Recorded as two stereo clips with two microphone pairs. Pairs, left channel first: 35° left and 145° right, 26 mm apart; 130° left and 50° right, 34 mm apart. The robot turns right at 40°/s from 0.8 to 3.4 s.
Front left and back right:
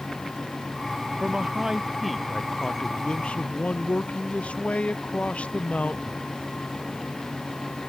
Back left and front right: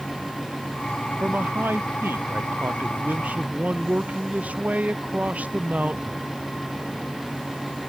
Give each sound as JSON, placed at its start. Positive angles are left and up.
{"t": 1.2, "sound": "a man speaking", "azimuth_deg": -90}